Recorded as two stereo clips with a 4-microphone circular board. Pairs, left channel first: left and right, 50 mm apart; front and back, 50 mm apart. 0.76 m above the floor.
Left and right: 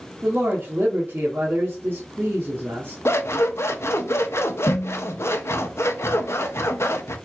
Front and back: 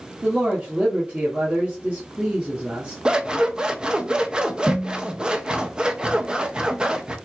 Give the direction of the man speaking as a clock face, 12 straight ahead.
4 o'clock.